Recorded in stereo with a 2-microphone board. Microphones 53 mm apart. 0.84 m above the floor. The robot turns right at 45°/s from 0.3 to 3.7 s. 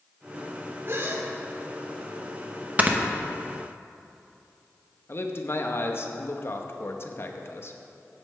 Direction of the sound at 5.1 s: 50° left (ahead or behind).